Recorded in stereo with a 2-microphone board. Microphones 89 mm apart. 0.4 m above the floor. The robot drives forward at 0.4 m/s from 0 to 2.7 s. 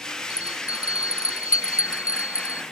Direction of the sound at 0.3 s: 40° left (ahead or behind).